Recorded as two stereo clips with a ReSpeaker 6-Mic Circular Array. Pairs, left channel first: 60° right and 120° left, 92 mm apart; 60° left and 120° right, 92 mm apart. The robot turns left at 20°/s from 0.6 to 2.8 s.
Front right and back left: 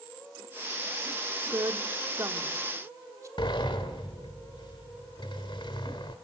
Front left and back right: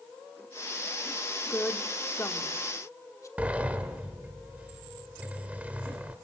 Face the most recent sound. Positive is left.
turn(degrees=-45)